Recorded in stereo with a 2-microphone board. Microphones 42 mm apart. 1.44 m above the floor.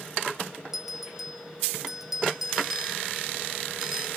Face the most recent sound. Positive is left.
turn(degrees=-5)  # may be behind; listen again after turning